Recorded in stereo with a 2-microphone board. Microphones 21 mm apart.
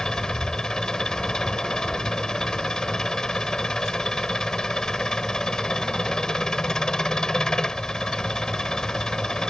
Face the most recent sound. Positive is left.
turn(degrees=30)  # may be behind; listen again after turning